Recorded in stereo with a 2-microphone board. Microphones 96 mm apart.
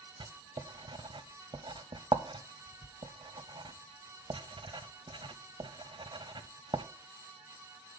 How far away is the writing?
About 0.6 m.